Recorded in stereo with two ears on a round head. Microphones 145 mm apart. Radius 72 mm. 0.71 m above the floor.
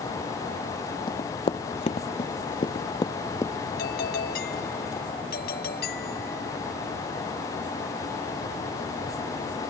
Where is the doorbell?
70° left (ahead or behind).